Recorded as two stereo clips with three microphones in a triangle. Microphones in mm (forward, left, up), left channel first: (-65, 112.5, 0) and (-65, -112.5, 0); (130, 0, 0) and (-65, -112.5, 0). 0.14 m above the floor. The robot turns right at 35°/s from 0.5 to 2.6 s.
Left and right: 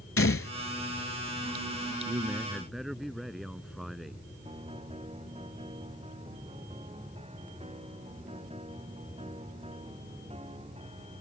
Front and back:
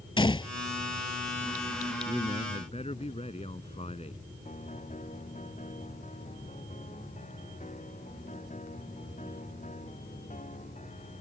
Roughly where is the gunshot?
Left.